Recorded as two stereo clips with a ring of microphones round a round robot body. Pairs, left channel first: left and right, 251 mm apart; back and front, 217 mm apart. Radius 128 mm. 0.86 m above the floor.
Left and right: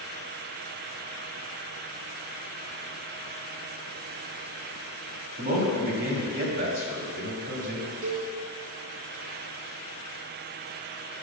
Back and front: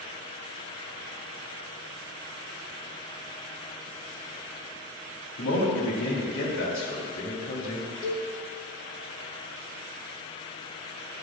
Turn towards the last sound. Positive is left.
turn(degrees=-110)